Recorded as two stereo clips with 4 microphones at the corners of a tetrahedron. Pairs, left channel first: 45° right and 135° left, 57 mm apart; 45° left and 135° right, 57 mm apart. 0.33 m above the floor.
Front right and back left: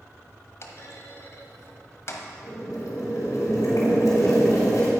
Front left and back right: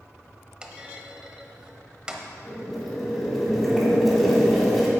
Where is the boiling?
45° right, 2.5 m.